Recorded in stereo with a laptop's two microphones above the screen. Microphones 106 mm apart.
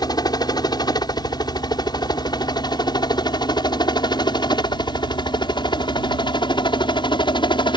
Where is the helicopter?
40° left (ahead or behind); by 7.8 s 45° left (ahead or behind).